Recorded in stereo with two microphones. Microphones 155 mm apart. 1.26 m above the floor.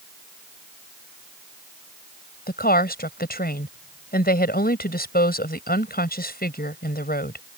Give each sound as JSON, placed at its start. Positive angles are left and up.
{"t": 2.5, "sound": "a woman speaking", "side_deg": 85}